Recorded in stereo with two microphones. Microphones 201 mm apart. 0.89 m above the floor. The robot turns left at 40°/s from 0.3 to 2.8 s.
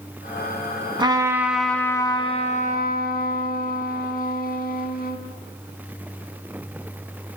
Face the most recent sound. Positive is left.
turn(degrees=130)